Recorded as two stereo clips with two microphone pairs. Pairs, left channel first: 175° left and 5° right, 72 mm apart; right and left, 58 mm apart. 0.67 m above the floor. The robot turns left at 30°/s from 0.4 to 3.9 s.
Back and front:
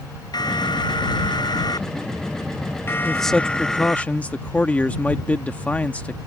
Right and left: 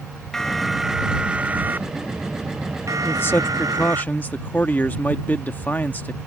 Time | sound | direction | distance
0.3 | an alarm | 170° right | ?
3.0 | a man speaking | 100° right | ?